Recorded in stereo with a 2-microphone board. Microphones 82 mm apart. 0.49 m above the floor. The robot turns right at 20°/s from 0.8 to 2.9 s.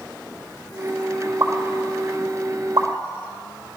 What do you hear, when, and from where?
1.4 s a pop: 40° right (ahead or behind), 1.0 m; by 2.9 s 60° right (ahead or behind), 1.0 m